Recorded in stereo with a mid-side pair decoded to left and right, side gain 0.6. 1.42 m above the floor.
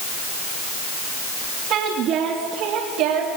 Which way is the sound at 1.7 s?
60° right.